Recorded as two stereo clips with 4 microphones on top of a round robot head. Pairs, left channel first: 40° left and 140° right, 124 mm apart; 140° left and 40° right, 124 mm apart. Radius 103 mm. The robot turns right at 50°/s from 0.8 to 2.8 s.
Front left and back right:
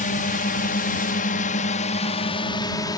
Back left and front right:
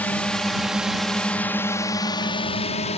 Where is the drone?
60° left; by 3.0 s 100° left.